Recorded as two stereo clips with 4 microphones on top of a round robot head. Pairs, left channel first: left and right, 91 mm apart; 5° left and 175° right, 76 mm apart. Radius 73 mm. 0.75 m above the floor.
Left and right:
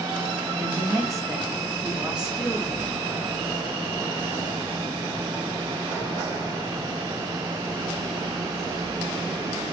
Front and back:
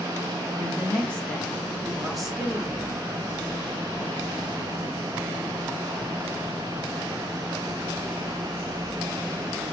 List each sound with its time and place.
0.6 s a woman speaking: 65° right, 1.5 m; by 3.0 s 130° left, 1.0 m